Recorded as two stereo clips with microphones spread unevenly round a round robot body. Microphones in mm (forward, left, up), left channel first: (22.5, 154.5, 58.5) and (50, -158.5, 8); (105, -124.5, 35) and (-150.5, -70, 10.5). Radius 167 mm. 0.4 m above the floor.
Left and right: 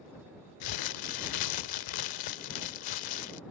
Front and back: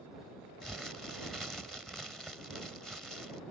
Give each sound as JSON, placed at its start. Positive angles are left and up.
{"t": 0.6, "sound": "crumpling", "azimuth_deg": 80}